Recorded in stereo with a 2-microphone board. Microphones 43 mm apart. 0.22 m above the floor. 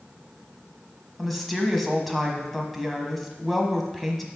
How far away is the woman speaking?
About 1.2 m.